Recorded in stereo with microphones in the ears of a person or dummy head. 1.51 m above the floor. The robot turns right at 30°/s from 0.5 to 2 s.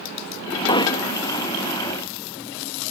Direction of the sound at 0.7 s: 30° left (ahead or behind).